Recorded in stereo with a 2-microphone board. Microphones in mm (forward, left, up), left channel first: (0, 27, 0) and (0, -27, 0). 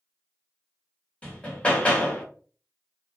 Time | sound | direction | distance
1.2 | hammering | 20° left (ahead or behind) | 1.2 m